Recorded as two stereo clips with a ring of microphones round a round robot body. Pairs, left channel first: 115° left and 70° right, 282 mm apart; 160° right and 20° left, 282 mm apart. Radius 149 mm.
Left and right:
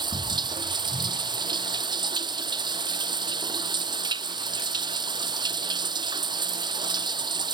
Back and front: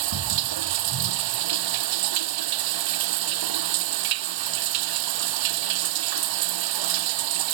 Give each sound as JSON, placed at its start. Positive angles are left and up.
{"t": 0.0, "sound": "running water", "azimuth_deg": 10}